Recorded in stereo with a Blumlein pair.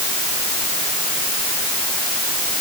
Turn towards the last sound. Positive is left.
No sound to turn to.